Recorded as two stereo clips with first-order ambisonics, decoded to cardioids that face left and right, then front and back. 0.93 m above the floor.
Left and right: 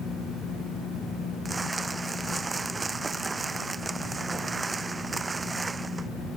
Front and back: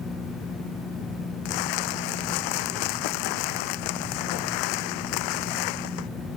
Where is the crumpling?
10° right.